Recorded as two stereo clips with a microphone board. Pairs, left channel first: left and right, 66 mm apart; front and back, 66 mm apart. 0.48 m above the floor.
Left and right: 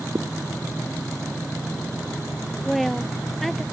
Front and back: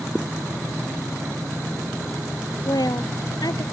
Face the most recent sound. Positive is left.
turn(degrees=0)